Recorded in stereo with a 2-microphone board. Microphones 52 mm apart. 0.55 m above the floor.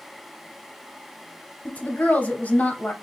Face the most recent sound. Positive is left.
turn(degrees=30)  # may be behind; listen again after turning